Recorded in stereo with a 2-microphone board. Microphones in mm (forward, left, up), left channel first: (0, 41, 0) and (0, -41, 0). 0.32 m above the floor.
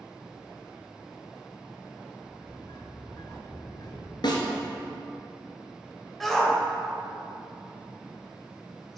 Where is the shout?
5° left (ahead or behind), 1.0 m.